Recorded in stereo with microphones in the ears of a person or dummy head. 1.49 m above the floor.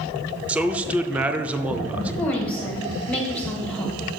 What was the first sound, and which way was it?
A man speaking, 5° right (ahead or behind).